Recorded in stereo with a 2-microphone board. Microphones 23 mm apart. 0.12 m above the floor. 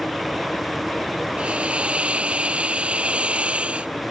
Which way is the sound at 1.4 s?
65° right (ahead or behind).